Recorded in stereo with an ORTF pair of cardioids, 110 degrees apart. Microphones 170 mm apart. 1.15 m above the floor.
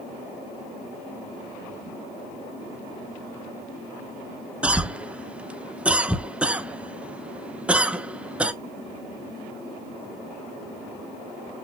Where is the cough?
5° right, 0.5 m.